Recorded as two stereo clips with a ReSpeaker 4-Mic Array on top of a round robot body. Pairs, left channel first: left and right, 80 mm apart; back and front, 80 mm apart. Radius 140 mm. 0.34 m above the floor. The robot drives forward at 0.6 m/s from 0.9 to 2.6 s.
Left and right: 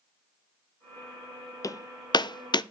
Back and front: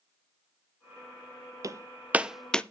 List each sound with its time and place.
1.6 s hammering: 45° left, 0.7 m; by 2.6 s 105° left, 0.6 m